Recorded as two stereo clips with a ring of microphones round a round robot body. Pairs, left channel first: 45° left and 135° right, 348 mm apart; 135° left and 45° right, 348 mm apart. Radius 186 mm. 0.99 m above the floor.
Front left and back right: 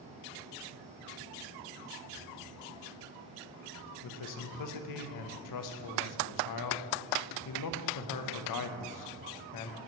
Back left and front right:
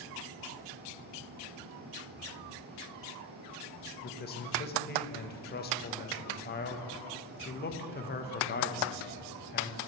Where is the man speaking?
75° left, 0.7 m.